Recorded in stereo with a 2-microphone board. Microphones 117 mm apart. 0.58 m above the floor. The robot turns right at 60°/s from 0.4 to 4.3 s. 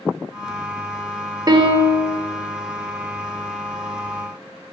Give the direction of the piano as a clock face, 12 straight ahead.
5 o'clock.